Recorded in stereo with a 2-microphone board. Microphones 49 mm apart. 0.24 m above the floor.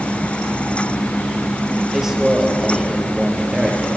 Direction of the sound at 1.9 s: 10° right (ahead or behind).